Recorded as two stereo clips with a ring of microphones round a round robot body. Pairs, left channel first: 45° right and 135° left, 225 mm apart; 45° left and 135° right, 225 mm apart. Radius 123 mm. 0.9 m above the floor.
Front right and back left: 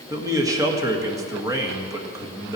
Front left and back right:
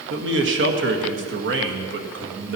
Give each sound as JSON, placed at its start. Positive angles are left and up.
{"t": 0.1, "sound": "a man speaking", "azimuth_deg": -150, "distance_m": 1.6}